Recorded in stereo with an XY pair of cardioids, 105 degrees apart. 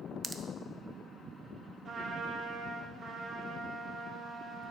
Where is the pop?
30° right, 0.7 m.